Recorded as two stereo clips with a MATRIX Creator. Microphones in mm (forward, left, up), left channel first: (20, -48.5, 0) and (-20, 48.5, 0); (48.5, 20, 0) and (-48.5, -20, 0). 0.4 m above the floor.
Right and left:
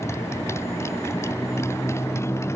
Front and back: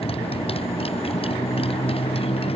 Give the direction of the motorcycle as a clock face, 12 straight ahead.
12 o'clock.